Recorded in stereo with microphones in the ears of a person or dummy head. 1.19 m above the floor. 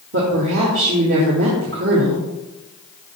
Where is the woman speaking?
60° right (ahead or behind), 1.8 m.